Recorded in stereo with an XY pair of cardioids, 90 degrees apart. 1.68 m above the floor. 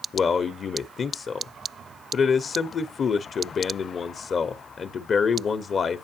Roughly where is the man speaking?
Ahead left.